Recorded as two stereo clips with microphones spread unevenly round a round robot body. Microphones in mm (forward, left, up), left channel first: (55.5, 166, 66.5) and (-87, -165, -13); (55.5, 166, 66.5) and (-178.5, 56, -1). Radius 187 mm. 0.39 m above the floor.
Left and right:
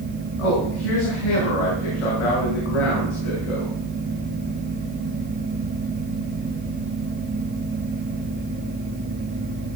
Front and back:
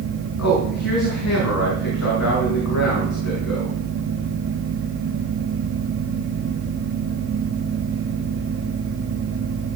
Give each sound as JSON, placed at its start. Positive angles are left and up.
{"t": 0.4, "sound": "a man speaking", "azimuth_deg": 50, "distance_m": 5.5}